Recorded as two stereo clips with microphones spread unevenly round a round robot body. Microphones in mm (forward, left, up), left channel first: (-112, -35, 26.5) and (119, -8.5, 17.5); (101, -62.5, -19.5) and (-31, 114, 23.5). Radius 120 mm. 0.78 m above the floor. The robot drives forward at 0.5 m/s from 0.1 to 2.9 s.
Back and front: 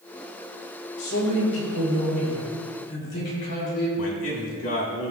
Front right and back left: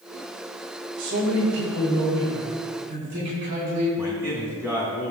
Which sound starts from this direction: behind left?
A man speaking, at 1.0 s.